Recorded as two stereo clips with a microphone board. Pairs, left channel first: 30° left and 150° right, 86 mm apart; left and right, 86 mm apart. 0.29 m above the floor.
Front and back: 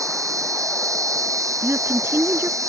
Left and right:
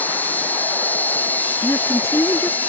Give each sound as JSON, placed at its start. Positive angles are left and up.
{"t": 0.0, "sound": "an insect", "azimuth_deg": 160}
{"t": 1.6, "sound": "a woman speaking", "azimuth_deg": 150}